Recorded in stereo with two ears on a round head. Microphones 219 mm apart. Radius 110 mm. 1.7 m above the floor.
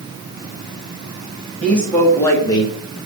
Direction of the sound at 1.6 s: 5° left (ahead or behind).